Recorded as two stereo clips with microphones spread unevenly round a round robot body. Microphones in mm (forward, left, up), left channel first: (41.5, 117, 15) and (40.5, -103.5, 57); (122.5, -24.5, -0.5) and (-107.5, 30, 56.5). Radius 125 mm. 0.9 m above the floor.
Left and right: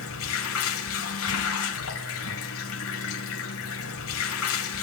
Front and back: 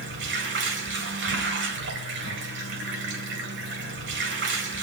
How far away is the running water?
About 2.5 m.